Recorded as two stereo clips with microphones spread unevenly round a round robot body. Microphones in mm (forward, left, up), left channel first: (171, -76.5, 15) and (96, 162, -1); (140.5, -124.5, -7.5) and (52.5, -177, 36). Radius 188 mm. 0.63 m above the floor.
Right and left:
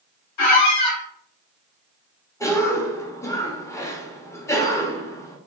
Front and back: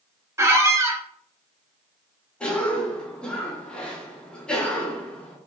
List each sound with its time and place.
0.4 s a squeak: 85° right, 0.9 m
2.4 s a cough: 5° left, 0.9 m